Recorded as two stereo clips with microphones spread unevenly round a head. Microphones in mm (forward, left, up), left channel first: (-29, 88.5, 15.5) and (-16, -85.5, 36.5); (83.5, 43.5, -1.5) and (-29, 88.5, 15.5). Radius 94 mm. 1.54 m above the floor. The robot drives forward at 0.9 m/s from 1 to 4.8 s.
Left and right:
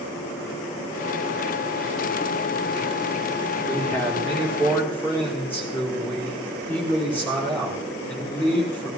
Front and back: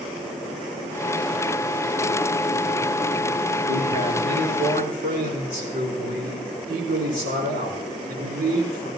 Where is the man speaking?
175° left, 4 m.